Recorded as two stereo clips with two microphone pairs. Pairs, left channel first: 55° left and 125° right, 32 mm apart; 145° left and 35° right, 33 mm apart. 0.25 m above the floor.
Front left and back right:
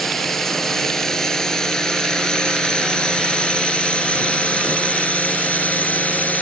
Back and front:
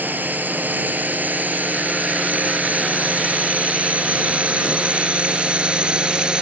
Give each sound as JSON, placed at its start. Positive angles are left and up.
{"t": 0.0, "sound": "a drone", "azimuth_deg": -25}